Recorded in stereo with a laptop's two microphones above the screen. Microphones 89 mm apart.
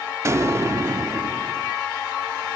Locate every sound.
0.2 s an explosion: 35° right (ahead or behind), 0.6 m